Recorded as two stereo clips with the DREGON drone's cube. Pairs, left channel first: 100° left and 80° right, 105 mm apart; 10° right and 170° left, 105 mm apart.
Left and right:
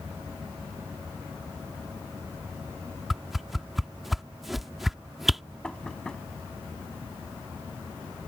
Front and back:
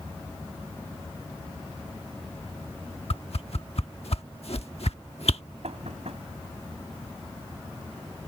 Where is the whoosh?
10° left.